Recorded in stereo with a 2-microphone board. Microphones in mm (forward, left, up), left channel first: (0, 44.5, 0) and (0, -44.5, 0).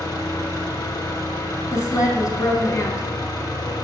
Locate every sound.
0.0 s an engine running: 35° left (ahead or behind), 1.2 m
1.7 s a woman speaking: 40° left (ahead or behind), 1.2 m